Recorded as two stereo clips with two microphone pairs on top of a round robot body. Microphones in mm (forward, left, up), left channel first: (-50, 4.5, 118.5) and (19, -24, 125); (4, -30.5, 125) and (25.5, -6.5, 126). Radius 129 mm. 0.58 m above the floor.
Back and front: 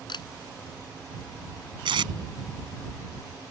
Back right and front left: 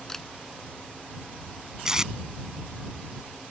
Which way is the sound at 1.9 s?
30° right.